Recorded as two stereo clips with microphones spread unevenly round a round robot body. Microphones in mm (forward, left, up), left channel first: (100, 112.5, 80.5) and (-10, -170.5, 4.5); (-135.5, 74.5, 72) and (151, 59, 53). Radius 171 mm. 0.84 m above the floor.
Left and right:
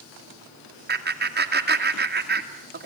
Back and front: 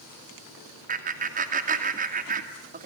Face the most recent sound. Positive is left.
turn(degrees=-65)